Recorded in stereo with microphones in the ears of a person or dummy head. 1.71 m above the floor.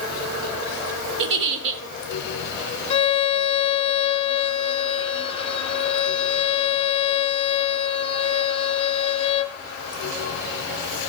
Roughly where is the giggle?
Right.